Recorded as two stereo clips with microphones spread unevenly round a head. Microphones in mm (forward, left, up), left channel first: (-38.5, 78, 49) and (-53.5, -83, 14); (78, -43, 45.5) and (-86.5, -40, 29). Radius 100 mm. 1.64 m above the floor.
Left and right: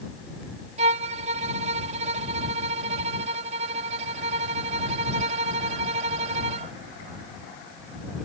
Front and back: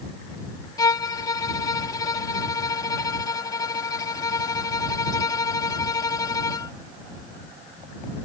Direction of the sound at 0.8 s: 45° right.